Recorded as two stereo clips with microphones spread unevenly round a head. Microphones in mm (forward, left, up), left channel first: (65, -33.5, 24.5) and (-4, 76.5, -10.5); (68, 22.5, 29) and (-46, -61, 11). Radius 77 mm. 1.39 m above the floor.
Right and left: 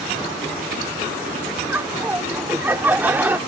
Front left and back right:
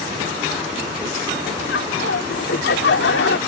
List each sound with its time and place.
1.7 s laughter: 45° left